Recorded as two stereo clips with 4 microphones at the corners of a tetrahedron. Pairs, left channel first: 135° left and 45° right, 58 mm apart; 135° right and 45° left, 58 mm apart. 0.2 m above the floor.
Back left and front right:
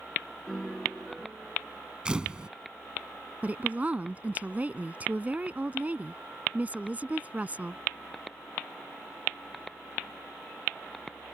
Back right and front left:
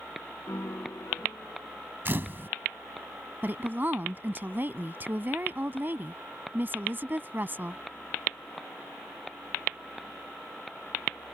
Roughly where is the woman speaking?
Ahead.